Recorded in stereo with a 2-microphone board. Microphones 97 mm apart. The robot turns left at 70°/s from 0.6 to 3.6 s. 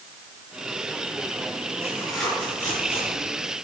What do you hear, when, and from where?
1.8 s tearing paper: 25° right (ahead or behind), 6.5 m; by 3.3 s 75° left (ahead or behind), 6.5 m